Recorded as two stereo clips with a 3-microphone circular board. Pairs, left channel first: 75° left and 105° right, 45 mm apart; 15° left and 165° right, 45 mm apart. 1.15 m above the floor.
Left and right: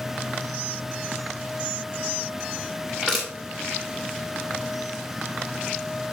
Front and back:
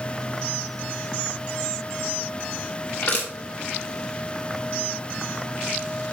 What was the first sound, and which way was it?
Crushing, 10° right.